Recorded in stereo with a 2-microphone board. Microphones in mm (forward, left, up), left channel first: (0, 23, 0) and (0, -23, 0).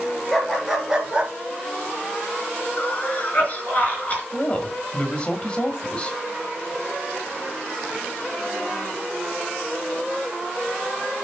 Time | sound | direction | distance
0.3 | a dog barking | 10° left (ahead or behind) | 2 m
2.8 | a cough | 30° left (ahead or behind) | 3.5 m
4.3 | a woman speaking | 25° left (ahead or behind) | 1.6 m